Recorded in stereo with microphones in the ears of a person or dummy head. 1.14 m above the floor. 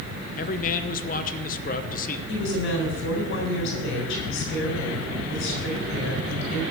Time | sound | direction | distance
0.4 | a man speaking | 40° left (ahead or behind) | 0.9 m
2.3 | a woman speaking | 60° left (ahead or behind) | 4 m